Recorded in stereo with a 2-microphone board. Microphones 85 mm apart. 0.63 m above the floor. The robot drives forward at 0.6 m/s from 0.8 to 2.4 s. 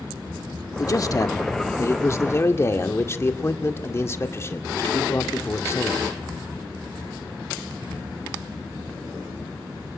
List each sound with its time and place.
0.8 s a man speaking: 45° left (ahead or behind), 1.4 m; by 6.0 s 30° left (ahead or behind), 1.9 m